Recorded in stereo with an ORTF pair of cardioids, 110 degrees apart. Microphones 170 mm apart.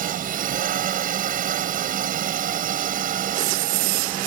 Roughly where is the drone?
Ahead right.